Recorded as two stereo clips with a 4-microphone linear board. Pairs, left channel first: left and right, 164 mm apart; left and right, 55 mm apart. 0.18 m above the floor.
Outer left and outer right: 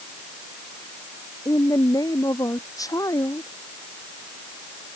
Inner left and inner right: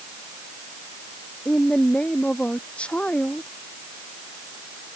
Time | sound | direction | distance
1.4 | a woman speaking | 20° left (ahead or behind) | ?